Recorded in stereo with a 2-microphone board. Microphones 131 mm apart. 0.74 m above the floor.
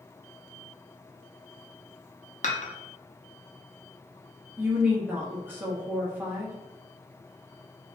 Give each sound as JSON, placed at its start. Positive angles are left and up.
{"t": 2.4, "sound": "dishes clattering", "side_deg": 60, "distance_m": 0.5}
{"t": 4.6, "sound": "a woman speaking", "side_deg": -15, "distance_m": 0.8}